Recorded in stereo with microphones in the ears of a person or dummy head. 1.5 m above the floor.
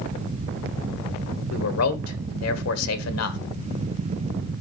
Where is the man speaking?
90° left, 1.3 m.